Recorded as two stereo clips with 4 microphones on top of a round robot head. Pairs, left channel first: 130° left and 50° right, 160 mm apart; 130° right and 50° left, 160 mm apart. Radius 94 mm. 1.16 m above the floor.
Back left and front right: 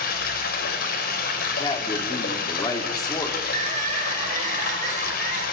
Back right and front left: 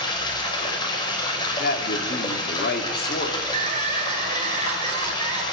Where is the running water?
165° left, 5.5 m.